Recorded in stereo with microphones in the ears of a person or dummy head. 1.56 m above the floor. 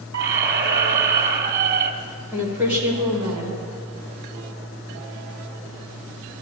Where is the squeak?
45° right (ahead or behind), 1.6 m.